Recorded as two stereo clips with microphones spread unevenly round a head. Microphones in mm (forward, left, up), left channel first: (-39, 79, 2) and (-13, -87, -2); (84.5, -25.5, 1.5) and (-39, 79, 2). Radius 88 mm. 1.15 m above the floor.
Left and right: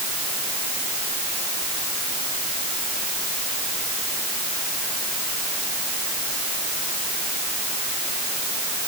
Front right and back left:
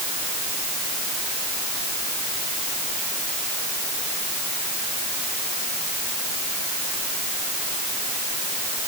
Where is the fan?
I don't hear a fan.